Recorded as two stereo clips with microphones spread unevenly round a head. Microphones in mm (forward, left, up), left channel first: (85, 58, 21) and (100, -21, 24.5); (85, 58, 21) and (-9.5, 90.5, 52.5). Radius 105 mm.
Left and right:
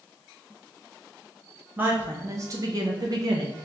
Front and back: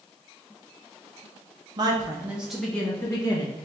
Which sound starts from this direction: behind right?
A woman speaking, at 1.8 s.